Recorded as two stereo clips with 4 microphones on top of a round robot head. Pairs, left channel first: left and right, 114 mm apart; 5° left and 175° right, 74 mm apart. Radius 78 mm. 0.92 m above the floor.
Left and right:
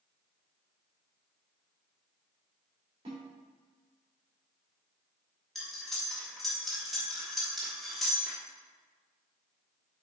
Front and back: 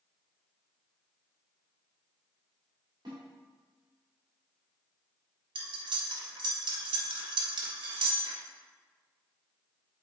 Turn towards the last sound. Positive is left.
turn(degrees=180)